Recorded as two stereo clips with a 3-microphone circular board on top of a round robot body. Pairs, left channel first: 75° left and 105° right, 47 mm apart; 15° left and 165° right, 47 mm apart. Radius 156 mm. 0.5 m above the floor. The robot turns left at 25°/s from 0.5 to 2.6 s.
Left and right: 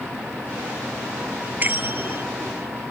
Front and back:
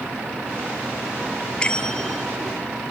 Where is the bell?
55° right; by 2.2 s 70° right.